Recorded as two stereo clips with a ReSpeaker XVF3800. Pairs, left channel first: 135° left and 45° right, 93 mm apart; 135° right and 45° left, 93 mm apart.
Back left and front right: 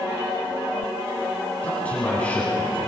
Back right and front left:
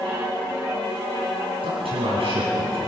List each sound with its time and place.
1.6 s a man speaking: 60° left, 9 m